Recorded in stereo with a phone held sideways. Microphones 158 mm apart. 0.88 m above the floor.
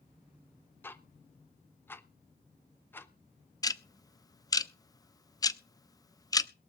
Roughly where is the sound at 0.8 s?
Centre.